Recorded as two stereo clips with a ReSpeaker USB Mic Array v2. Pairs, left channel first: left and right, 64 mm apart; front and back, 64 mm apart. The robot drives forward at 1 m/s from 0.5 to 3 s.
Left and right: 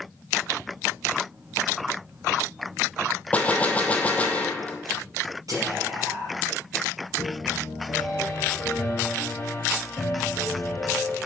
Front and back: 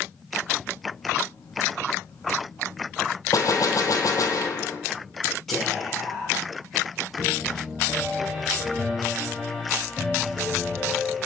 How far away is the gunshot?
About 0.8 m.